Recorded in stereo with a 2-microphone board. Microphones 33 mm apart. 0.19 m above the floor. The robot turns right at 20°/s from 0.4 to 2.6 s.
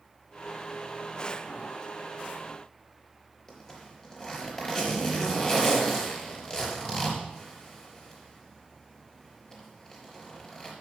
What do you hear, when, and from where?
3.5 s a zipper: 20° left (ahead or behind), 4 m